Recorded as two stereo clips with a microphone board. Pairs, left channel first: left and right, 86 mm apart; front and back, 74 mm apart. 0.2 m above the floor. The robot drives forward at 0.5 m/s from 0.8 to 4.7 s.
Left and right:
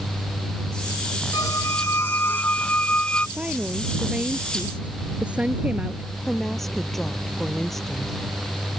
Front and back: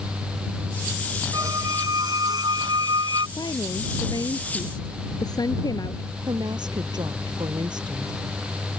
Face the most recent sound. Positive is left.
turn(degrees=175)